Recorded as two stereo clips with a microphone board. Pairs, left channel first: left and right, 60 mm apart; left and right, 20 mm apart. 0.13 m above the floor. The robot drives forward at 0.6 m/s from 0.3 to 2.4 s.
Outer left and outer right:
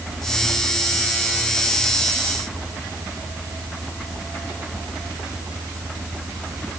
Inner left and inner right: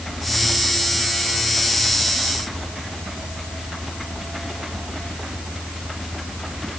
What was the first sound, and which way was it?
Only background noise.